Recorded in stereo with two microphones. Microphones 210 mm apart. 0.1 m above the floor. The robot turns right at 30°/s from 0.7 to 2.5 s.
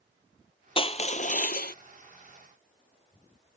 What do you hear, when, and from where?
0.8 s crushing: 30° left (ahead or behind); by 1.8 s 55° left (ahead or behind)